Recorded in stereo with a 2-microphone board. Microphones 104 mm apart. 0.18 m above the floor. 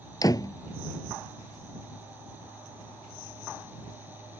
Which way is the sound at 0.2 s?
35° left (ahead or behind).